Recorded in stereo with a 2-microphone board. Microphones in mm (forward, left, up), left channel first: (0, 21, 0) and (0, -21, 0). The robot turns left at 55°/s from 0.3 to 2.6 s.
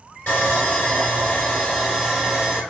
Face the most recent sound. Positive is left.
turn(degrees=-35)